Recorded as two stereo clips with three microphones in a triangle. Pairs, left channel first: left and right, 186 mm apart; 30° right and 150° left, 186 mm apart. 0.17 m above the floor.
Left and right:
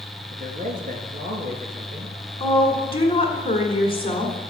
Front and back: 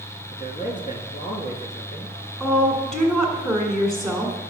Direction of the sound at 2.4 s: 60° left.